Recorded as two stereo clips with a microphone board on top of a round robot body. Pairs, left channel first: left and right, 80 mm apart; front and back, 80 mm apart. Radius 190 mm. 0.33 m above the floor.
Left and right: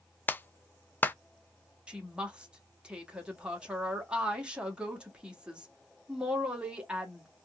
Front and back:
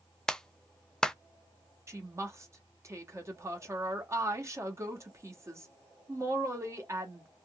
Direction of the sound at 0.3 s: 70° left.